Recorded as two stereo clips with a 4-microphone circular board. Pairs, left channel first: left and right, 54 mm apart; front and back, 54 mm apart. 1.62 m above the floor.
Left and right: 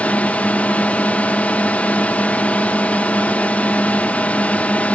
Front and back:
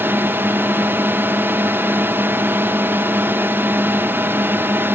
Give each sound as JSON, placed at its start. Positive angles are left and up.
{"t": 0.0, "sound": "a drone", "azimuth_deg": 145}